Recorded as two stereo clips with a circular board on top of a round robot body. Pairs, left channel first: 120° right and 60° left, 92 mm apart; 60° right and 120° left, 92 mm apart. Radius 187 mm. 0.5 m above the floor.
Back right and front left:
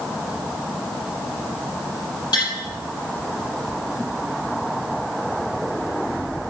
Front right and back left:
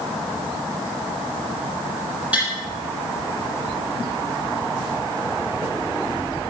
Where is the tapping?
165° right, 5.5 m.